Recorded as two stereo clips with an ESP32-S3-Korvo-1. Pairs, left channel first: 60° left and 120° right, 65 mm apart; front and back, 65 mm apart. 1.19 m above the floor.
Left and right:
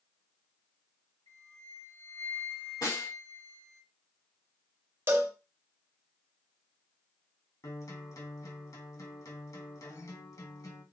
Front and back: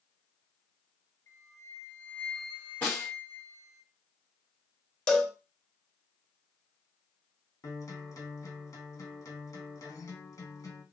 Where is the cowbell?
75° right, 0.8 m.